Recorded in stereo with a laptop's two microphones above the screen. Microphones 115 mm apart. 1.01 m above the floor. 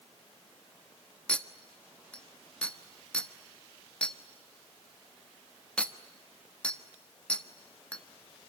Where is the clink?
10° left (ahead or behind), 1.3 m.